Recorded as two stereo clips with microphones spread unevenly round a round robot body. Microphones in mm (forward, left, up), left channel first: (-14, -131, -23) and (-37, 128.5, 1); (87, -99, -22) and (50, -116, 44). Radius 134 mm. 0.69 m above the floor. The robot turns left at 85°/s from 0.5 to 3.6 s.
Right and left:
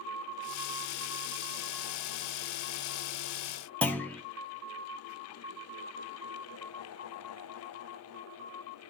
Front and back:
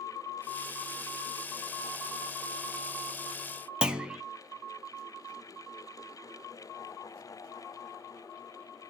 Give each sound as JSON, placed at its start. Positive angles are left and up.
{"t": 3.8, "sound": "a clunk", "azimuth_deg": -5, "distance_m": 1.0}